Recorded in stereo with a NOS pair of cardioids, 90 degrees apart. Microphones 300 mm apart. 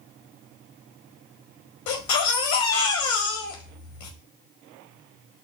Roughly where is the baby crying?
Left.